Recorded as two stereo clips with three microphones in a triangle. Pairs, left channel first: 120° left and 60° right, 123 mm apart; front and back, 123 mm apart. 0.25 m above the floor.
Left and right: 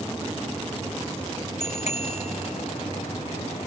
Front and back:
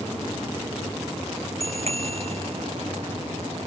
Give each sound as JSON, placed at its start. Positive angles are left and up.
{"t": 1.6, "sound": "a bicycle bell", "azimuth_deg": 145}